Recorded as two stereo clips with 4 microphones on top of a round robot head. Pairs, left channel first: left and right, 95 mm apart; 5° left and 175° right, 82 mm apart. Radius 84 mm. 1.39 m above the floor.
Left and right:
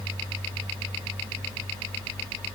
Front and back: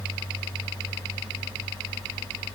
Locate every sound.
Only background noise.